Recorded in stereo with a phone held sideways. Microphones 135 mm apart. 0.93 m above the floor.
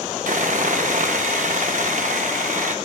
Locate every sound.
0.3 s sawing: 65° right (ahead or behind), 0.8 m